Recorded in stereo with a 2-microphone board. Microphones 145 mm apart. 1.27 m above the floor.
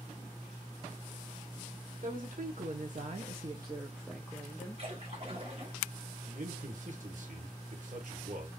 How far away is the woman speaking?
About 1.1 m.